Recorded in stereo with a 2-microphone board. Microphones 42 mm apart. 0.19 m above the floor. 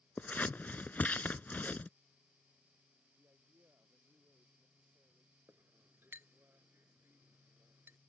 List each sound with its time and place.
0.2 s scissors: 40° left (ahead or behind)
3.2 s a man speaking: 75° right (ahead or behind)
5.5 s a clink: 60° right (ahead or behind)